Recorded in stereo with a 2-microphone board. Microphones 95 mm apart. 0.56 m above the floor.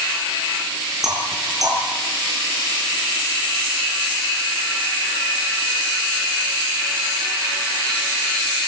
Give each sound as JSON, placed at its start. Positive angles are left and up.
{"t": 1.0, "sound": "knocking", "side_deg": -40, "distance_m": 7.0}